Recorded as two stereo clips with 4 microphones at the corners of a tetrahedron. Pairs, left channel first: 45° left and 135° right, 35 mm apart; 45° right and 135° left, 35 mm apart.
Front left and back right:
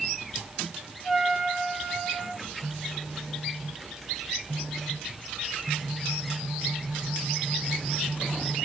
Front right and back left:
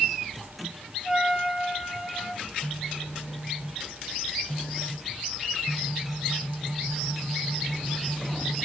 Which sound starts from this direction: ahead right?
A phone buzzing, at 2.4 s.